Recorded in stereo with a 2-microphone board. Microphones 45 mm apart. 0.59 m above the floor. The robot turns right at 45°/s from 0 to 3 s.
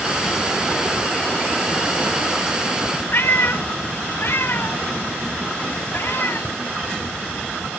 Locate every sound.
3.1 s a cat meowing: 60° left (ahead or behind), 0.7 m